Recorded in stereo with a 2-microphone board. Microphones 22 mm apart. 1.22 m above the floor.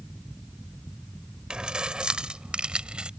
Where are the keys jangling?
45° right (ahead or behind); by 3.1 s 55° right (ahead or behind).